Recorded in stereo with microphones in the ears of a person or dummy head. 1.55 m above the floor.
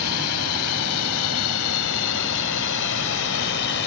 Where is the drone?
85° left; by 3.9 s 65° left (ahead or behind).